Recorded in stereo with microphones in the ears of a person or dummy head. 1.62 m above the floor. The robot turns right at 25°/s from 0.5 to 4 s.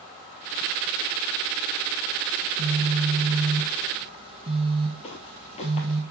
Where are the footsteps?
30° left (ahead or behind), 3 m.